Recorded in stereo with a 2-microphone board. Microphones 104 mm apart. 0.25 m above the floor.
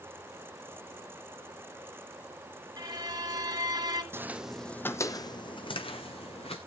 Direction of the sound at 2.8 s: 40° right (ahead or behind).